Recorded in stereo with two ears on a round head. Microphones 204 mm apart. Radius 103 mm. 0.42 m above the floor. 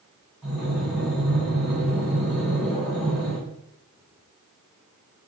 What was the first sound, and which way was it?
Breathing, centre (ahead or behind).